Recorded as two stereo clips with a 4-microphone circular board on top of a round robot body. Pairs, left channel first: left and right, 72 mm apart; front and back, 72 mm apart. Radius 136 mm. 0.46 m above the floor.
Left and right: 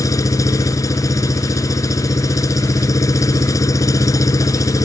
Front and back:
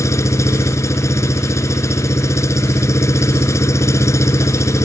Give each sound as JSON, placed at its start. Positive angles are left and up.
{"t": 0.0, "sound": "an engine running", "azimuth_deg": 50}